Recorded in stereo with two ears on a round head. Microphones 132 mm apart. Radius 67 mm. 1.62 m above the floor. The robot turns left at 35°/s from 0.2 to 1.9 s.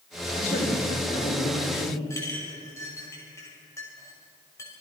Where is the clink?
20° left (ahead or behind), 5.5 m.